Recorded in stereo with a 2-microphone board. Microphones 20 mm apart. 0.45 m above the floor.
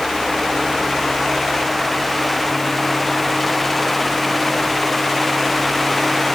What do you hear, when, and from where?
Only background noise.